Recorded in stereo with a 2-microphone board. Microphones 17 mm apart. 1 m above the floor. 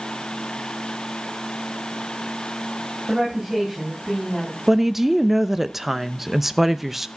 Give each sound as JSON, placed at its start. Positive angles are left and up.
{"t": 3.1, "sound": "a woman speaking", "side_deg": -20, "distance_m": 7.0}
{"t": 4.7, "sound": "a woman speaking", "side_deg": -15, "distance_m": 0.7}